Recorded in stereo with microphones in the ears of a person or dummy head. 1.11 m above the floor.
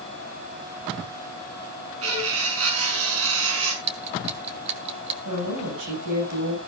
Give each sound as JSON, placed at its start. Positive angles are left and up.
{"t": 2.0, "sound": "cutlery clinking", "side_deg": -80, "distance_m": 6.0}
{"t": 3.8, "sound": "ticking", "side_deg": -35, "distance_m": 1.5}
{"t": 5.2, "sound": "a woman speaking", "side_deg": -60, "distance_m": 7.0}